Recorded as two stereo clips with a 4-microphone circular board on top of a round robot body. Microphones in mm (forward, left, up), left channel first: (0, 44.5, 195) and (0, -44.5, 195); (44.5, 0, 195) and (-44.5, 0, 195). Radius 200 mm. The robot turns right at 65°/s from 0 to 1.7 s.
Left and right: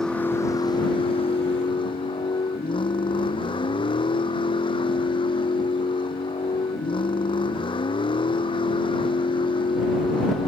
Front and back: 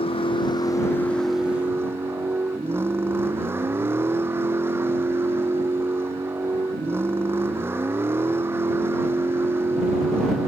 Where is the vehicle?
5° left; by 10.5 s 115° left.